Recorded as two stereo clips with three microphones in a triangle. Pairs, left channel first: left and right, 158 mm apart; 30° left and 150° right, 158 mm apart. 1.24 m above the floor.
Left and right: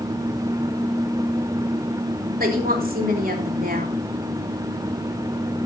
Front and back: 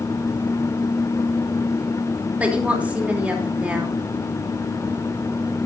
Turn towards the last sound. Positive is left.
turn(degrees=-70)